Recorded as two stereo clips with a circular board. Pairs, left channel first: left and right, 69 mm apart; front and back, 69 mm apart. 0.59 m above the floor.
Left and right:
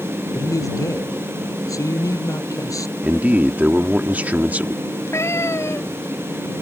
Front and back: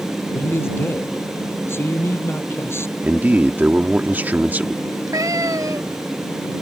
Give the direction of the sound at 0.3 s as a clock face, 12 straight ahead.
10 o'clock.